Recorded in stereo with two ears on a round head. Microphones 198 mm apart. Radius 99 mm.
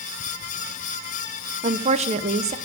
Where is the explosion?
No explosion in this recording.